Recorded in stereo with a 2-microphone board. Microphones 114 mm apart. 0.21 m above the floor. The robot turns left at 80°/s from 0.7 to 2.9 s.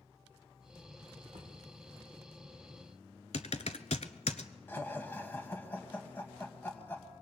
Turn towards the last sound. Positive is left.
turn(degrees=20)  # may be behind; listen again after turning